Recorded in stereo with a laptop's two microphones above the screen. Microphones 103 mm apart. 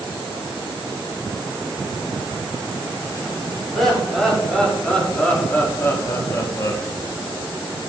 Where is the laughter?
Centre (ahead or behind), 3.5 m; by 6.8 s 40° left (ahead or behind), 1.8 m.